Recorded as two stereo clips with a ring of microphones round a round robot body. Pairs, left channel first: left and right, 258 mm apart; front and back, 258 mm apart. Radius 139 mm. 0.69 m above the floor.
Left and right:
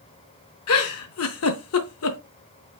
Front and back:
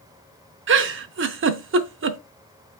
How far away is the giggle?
About 0.6 m.